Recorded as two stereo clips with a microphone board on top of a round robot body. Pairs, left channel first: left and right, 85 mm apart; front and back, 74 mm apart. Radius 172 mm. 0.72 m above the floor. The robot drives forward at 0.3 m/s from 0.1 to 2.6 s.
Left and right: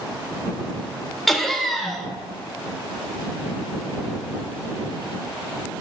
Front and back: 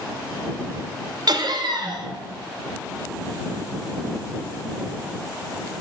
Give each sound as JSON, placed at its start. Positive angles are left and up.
{"t": 1.3, "sound": "laughter", "azimuth_deg": 175, "distance_m": 0.7}